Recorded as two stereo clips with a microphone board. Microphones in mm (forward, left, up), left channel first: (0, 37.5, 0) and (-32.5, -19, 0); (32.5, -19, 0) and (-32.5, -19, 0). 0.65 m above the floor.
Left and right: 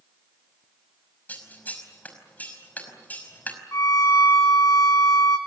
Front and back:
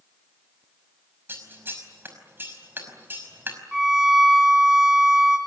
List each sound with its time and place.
1.3 s scissors: 125° left, 5 m
3.7 s a violin: 100° left, 2 m